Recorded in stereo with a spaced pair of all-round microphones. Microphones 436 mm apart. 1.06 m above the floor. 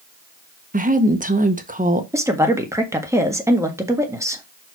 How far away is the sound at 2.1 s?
About 1.5 m.